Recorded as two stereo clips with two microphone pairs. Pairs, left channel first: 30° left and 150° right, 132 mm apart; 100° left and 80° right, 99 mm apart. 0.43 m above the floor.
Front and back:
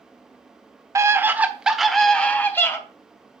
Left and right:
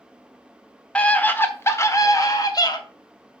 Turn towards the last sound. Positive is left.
turn(degrees=90)